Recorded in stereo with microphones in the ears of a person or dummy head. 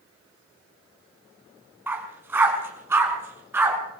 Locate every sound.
1.9 s a dog barking: 15° right (ahead or behind), 4.5 m; by 3.8 s 10° right (ahead or behind), 6 m